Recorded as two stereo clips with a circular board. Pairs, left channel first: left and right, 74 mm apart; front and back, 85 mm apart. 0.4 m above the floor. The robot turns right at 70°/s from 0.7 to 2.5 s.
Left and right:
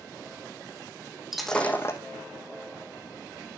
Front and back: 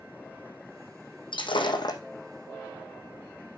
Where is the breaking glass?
5° right, 1.3 m; by 2.0 s 45° left, 1.3 m.